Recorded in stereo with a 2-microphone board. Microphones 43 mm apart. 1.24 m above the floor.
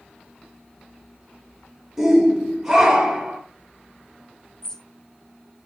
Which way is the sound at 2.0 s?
10° right (ahead or behind).